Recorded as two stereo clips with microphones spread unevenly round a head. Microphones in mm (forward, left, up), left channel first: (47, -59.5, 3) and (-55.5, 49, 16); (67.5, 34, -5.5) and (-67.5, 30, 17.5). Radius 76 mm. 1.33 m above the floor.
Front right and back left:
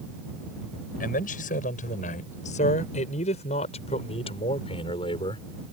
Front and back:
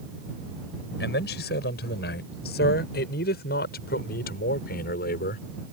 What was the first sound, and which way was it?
A man speaking, 5° right.